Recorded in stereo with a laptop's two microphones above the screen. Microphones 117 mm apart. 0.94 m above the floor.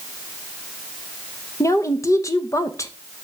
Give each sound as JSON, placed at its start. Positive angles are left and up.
{"t": 1.6, "sound": "a woman speaking", "side_deg": 25, "distance_m": 0.6}